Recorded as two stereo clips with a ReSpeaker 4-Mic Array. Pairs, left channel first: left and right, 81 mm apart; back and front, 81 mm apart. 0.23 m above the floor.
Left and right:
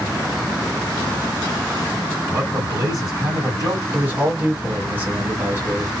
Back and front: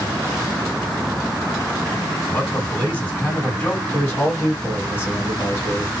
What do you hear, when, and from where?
2.3 s a man speaking: 120° right, 2 m
3.9 s a man speaking: 140° right, 1.7 m